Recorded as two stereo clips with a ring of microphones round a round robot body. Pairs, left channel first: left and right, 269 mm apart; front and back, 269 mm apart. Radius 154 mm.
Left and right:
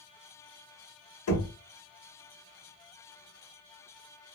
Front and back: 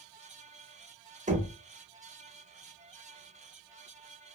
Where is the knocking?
120° left, 1.0 m.